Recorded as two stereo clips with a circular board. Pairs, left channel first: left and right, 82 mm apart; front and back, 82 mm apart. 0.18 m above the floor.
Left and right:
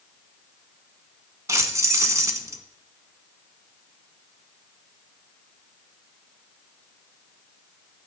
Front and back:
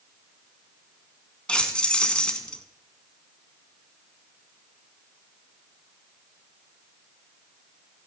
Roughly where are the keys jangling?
Right.